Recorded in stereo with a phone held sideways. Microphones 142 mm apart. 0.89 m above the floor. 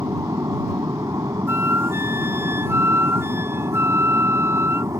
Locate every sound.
0.0 s an aircraft: 20° right (ahead or behind)
1.5 s a flute: 15° right (ahead or behind)